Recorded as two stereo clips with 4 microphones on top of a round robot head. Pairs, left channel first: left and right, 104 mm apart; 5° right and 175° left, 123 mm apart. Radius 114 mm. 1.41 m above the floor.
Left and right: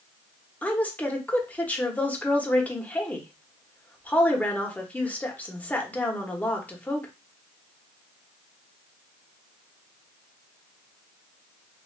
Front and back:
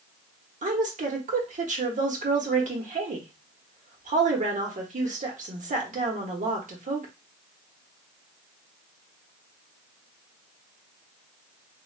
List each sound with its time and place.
0.6 s a woman speaking: 165° left, 1.1 m